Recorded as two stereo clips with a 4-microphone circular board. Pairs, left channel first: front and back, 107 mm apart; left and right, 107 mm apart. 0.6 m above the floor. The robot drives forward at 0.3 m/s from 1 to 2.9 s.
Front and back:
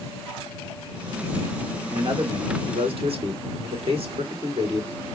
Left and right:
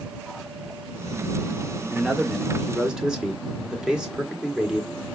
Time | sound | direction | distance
1.9 | a man speaking | 170° right | 1.0 m